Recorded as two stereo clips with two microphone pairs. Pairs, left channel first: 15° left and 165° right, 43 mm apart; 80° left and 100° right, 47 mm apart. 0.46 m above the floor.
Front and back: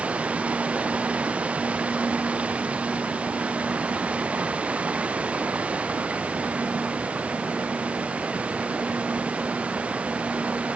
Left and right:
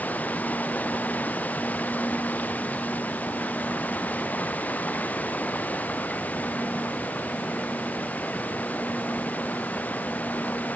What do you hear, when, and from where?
0.0 s running water: 135° left